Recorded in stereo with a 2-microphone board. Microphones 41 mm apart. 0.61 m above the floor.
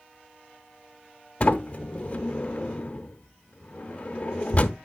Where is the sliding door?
35° left (ahead or behind), 0.8 m.